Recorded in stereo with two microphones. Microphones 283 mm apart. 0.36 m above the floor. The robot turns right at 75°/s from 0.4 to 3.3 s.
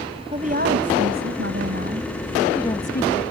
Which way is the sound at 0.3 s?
150° right.